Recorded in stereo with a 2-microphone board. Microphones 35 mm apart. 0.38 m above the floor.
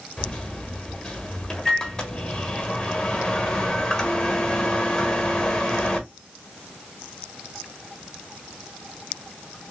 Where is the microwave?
20° left (ahead or behind), 1.3 m.